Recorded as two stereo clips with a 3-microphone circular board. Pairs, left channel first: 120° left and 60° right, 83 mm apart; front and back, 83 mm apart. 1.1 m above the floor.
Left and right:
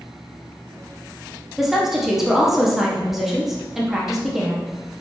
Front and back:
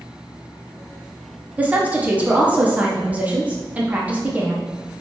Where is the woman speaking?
140° right, 0.5 m.